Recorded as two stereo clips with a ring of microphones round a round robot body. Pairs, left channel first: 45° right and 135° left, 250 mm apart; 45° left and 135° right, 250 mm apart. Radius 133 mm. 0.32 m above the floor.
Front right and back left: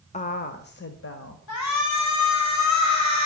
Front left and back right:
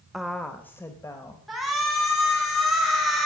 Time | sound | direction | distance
0.1 | a woman speaking | 50° right | 1.0 m
1.5 | a shout | 45° right | 3 m